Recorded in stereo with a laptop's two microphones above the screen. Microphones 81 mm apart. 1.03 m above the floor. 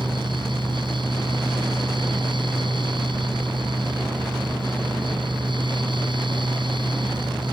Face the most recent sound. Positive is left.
turn(degrees=-75)  # may be behind; listen again after turning